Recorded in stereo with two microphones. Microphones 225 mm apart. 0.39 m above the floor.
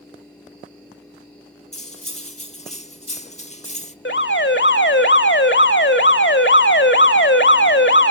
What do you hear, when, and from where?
1.7 s cutlery clinking: 30° left (ahead or behind), 0.7 m
4.0 s an alarm: 55° left (ahead or behind), 1.2 m